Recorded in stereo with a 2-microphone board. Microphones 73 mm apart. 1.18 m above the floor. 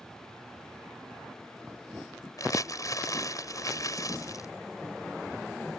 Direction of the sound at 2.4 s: 50° left (ahead or behind).